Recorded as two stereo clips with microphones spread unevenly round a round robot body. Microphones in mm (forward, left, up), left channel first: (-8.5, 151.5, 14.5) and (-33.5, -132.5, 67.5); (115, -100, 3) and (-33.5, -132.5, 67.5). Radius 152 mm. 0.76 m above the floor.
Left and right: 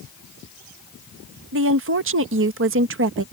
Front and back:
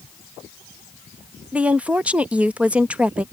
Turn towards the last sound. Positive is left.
turn(degrees=-60)